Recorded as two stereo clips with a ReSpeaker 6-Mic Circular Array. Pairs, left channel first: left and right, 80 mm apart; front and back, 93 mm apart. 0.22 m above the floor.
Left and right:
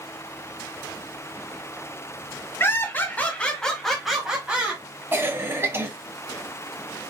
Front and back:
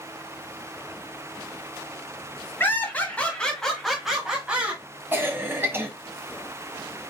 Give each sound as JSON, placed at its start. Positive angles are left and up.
{"t": 2.6, "sound": "laughter", "azimuth_deg": 55, "distance_m": 1.9}
{"t": 5.1, "sound": "a cough", "azimuth_deg": -130, "distance_m": 1.5}